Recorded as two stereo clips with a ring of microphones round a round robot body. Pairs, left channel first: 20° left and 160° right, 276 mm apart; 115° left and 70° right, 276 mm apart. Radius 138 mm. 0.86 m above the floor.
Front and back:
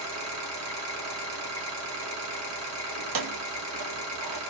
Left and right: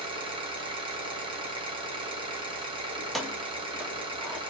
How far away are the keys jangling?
About 0.5 m.